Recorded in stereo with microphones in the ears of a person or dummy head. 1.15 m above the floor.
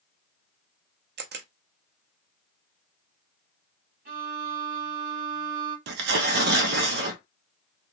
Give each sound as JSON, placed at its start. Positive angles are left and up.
{"t": 1.2, "sound": "a camera shutter", "side_deg": -50, "distance_m": 0.5}
{"t": 4.0, "sound": "a violin", "side_deg": -60, "distance_m": 1.3}
{"t": 5.9, "sound": "tearing paper", "side_deg": -70, "distance_m": 0.6}